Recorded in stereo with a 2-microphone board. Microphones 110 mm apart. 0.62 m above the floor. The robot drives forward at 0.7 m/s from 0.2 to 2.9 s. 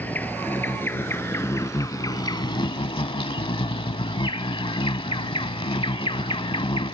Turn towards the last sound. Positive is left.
turn(degrees=55)  # may be behind; listen again after turning